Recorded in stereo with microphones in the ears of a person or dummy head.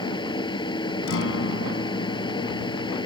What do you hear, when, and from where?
0.0 s a fan: 25° left (ahead or behind)
1.1 s a guitar: 75° left (ahead or behind)